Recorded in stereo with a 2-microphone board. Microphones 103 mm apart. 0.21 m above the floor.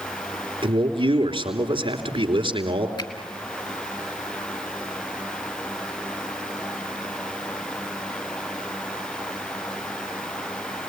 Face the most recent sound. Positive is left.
turn(degrees=50)  # may be behind; listen again after turning